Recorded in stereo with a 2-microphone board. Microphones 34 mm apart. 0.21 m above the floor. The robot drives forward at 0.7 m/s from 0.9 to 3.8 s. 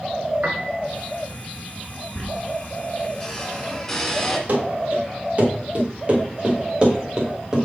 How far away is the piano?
About 0.9 m.